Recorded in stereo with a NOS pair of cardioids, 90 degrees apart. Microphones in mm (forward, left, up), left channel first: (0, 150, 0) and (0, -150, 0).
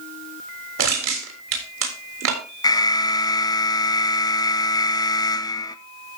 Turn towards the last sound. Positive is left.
turn(degrees=15)